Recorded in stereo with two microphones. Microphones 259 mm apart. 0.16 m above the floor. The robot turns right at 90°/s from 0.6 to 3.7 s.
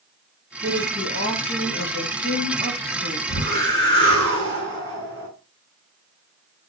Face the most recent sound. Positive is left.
turn(degrees=150)